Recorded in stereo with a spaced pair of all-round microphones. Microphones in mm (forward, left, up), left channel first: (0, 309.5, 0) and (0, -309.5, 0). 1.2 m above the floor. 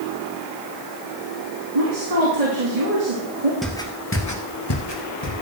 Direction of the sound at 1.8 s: 75° right (ahead or behind).